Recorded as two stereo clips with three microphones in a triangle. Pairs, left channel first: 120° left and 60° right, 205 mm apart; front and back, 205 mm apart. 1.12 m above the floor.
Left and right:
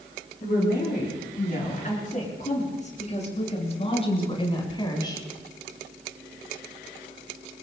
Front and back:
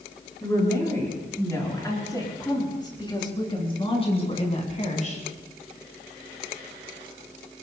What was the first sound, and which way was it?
A woman speaking, 80° left.